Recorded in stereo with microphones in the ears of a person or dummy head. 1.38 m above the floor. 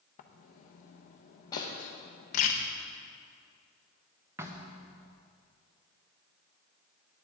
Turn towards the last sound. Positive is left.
turn(degrees=-15)  # may be behind; listen again after turning